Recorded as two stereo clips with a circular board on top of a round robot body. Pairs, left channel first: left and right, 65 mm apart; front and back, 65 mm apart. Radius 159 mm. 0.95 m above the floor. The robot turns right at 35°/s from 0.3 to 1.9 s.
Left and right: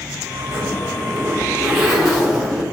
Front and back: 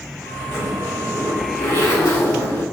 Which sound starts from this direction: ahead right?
A zipper, at 0.5 s.